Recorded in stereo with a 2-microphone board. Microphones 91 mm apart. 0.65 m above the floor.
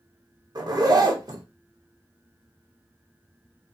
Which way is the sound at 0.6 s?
45° right (ahead or behind).